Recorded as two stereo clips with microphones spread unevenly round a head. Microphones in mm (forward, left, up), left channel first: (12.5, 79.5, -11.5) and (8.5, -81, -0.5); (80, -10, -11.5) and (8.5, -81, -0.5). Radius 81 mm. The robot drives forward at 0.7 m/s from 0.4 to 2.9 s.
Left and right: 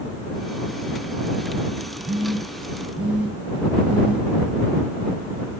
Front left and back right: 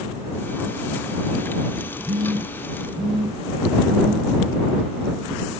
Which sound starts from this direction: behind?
A phone buzzing, at 2.0 s.